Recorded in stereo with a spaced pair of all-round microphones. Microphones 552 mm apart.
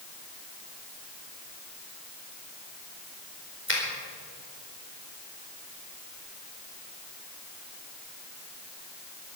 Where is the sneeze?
No sneeze in this recording.